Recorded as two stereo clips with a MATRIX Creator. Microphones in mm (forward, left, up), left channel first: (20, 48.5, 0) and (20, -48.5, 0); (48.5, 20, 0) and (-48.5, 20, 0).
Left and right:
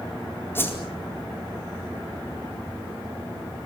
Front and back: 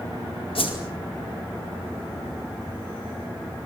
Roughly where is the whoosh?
Ahead.